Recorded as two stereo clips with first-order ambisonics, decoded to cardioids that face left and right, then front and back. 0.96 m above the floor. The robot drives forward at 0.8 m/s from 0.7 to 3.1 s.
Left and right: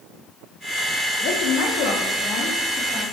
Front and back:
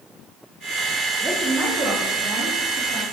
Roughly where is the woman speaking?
Left.